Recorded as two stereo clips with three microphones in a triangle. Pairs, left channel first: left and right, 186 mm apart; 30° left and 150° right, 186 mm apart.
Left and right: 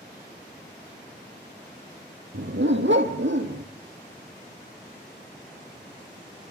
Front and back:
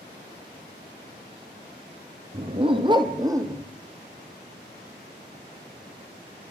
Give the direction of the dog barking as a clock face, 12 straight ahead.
3 o'clock.